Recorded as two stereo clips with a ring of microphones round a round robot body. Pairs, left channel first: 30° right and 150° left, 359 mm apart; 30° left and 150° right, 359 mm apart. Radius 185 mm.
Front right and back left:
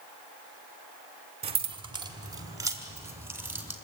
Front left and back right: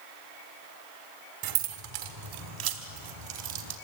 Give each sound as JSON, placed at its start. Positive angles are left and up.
{"t": 1.4, "sound": "keys jangling", "azimuth_deg": -140, "distance_m": 1.6}